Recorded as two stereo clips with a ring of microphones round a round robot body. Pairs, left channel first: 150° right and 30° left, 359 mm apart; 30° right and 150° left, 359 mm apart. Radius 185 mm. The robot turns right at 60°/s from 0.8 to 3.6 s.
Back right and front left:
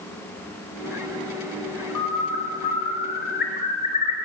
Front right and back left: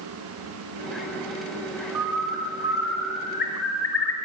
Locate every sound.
1.9 s a bird: straight behind, 3.5 m; by 4.2 s 80° right, 3.5 m